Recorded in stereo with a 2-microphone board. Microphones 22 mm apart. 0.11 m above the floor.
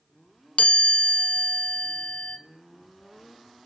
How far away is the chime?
About 0.6 m.